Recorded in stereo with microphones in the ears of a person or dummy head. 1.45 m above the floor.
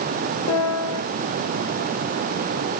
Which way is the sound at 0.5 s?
75° left (ahead or behind).